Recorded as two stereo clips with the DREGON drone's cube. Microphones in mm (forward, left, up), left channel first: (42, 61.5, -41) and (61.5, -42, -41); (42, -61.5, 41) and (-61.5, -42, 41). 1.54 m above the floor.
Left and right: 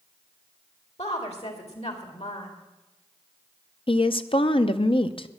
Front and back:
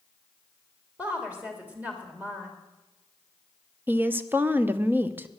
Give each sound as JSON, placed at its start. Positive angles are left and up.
{"t": 1.0, "sound": "a woman speaking", "azimuth_deg": 95, "distance_m": 3.0}
{"t": 3.9, "sound": "a woman speaking", "azimuth_deg": 105, "distance_m": 0.7}